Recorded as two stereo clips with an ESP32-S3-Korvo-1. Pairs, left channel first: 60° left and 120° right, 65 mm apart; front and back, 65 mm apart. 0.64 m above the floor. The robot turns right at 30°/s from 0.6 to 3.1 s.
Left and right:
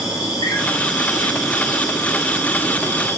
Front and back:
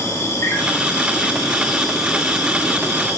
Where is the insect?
50° left, 3 m; by 3.2 s 125° left, 3 m.